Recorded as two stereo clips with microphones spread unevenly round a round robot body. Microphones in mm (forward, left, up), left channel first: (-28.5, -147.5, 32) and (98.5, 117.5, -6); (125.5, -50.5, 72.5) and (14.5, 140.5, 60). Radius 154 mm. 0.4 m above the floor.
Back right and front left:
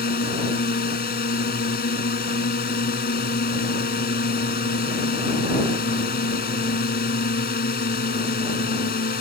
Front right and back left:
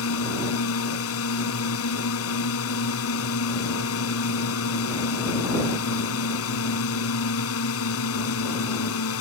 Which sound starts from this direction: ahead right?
A drone, at 0.0 s.